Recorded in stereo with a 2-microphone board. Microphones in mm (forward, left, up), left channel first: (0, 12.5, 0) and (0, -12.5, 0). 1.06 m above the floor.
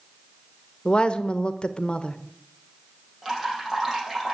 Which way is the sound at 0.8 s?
45° left (ahead or behind).